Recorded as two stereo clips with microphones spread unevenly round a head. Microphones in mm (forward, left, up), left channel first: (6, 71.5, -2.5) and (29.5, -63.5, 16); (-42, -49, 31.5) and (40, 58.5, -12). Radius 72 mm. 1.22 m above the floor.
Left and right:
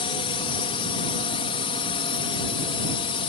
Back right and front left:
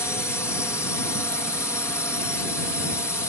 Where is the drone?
150° left.